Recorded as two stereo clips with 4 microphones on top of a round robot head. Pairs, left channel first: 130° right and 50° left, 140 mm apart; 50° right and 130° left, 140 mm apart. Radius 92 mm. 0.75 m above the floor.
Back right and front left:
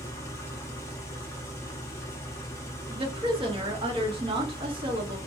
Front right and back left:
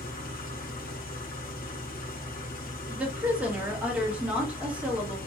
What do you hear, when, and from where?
0.0 s an engine running: 60° right, 0.9 m
2.9 s a woman speaking: 55° left, 1.2 m